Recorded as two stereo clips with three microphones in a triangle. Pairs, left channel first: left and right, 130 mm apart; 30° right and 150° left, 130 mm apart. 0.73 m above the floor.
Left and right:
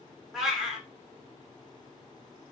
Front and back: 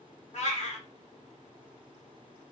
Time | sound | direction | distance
0.3 | a cat meowing | 5° right | 1.0 m